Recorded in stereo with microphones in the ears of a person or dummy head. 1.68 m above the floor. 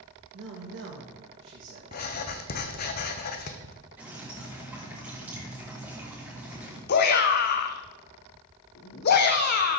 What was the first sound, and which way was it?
A man speaking, 65° right (ahead or behind).